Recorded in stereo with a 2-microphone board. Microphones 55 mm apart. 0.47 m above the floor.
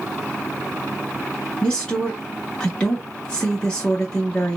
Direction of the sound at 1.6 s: 15° left (ahead or behind).